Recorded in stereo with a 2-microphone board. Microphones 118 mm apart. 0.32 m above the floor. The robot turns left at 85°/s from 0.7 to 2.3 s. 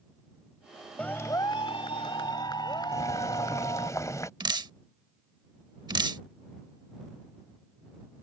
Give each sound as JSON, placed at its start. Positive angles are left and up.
{"t": 1.0, "sound": "a clap", "azimuth_deg": 165}
{"t": 2.9, "sound": "boiling", "side_deg": 25}
{"t": 4.4, "sound": "dripping", "side_deg": -40}